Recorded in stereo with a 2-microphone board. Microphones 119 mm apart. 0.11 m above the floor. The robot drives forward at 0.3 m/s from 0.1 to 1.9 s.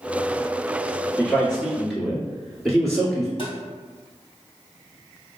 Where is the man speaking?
5° left (ahead or behind), 1.5 m.